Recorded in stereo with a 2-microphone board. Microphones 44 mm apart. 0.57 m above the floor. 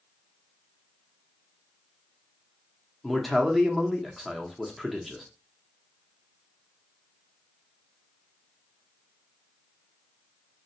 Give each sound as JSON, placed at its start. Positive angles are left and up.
{"t": 3.0, "sound": "a man speaking", "side_deg": 5, "distance_m": 0.7}